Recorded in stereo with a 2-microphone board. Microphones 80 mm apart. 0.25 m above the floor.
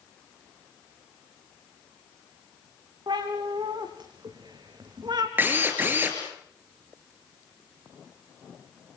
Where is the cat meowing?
65° right (ahead or behind), 5 m; by 5.3 s 60° right (ahead or behind), 3.5 m.